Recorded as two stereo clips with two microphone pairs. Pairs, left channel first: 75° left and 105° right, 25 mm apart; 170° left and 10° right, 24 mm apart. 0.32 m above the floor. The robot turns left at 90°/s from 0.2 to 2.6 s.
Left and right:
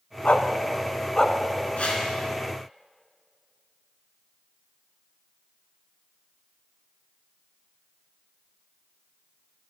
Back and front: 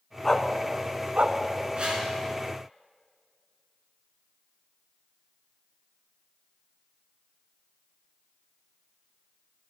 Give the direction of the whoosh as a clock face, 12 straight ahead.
11 o'clock.